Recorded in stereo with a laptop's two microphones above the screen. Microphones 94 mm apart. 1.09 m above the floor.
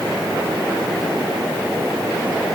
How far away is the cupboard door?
No cupboard door in this recording.